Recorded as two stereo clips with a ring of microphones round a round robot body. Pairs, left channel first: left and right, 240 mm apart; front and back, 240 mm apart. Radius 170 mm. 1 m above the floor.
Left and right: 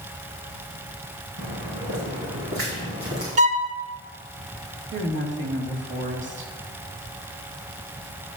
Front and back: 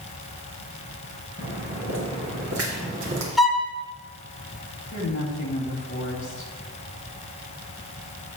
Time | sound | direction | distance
1.4 | footsteps | 115° right | 4 m
3.4 | a violin | 90° right | 0.6 m
4.9 | a woman speaking | 55° right | 2.5 m